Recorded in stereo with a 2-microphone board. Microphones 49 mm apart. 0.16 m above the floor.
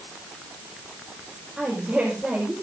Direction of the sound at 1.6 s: 25° right (ahead or behind).